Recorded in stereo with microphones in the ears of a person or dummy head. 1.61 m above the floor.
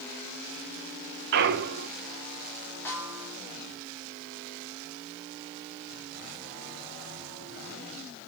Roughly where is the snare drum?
Centre.